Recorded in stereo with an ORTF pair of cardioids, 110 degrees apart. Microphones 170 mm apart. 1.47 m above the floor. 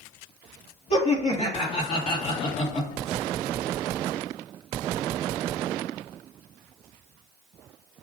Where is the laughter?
40° left, 1.6 m.